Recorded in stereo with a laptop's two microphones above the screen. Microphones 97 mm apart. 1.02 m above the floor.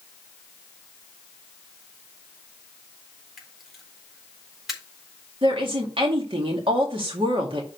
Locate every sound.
3.4 s a camera shutter: 5° right (ahead or behind), 4 m
5.4 s a woman speaking: 65° right (ahead or behind), 2 m